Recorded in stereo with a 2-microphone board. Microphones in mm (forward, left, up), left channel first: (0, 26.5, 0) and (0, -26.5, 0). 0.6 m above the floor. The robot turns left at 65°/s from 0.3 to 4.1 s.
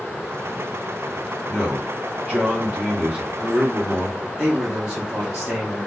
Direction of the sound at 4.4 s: 15° right (ahead or behind).